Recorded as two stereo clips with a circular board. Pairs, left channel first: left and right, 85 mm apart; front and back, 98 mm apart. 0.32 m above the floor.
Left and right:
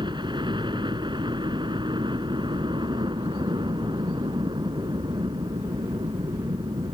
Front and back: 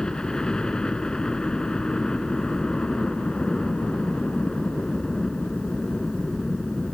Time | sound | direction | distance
0.0 | a helicopter | 80° right | ?